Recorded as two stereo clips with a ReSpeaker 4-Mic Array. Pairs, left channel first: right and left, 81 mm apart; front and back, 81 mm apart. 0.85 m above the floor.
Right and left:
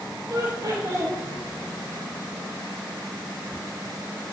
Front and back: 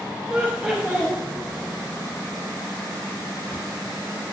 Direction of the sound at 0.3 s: 110° left.